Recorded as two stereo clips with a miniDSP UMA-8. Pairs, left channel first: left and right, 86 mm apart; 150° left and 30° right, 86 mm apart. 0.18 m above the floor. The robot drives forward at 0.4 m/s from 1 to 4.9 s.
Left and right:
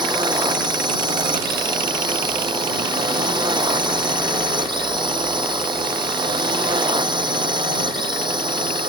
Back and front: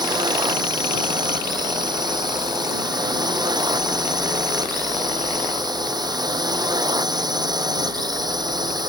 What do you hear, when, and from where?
0.0 s a drone: 65° right